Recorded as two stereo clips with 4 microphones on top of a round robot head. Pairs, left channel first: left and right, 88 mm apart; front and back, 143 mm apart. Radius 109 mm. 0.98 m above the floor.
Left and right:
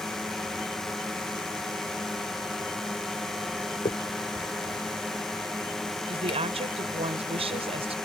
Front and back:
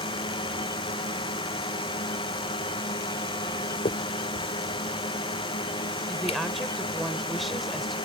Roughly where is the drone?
Ahead.